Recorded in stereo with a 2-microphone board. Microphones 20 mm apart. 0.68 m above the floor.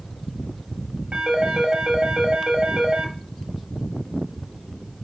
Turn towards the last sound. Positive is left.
turn(degrees=-65)  # may be behind; listen again after turning